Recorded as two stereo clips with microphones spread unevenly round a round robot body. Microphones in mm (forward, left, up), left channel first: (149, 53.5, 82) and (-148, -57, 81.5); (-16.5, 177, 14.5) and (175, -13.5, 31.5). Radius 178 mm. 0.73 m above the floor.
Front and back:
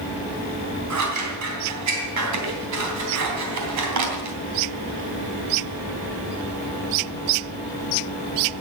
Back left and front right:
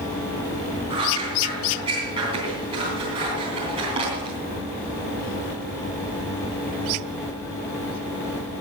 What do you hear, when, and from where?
0.9 s scissors: 120° right, 3 m